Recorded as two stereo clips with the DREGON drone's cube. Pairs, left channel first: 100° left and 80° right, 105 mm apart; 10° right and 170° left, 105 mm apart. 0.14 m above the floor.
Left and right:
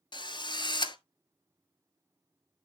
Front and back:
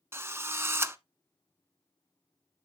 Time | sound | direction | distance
0.1 | a drill | 110° left | 0.6 m